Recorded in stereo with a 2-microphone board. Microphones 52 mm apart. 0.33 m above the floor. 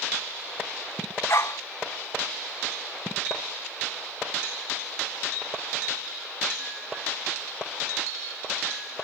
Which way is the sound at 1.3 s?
55° left (ahead or behind).